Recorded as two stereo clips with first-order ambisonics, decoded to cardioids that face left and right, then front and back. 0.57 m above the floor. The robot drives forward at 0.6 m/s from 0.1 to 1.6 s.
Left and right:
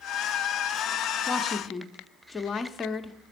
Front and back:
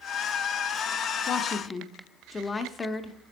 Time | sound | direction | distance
1.3 | a woman speaking | 20° left | 0.7 m